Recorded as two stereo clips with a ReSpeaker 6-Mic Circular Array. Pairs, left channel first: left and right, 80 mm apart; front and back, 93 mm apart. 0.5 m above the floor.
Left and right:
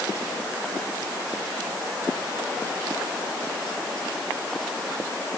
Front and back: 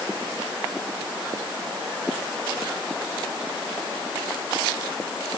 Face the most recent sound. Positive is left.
No sound to turn to.